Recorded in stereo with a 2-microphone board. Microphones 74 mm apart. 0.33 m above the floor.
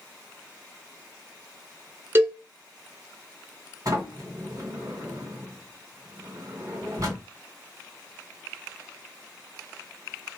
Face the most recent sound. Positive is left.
turn(degrees=-55)  # may be behind; listen again after turning